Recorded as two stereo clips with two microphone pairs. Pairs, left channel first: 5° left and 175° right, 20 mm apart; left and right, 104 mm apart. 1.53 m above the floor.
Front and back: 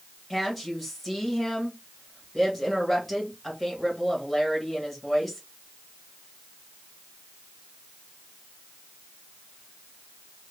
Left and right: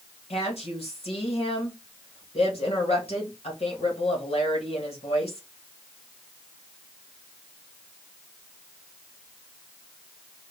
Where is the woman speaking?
85° left, 1.6 m.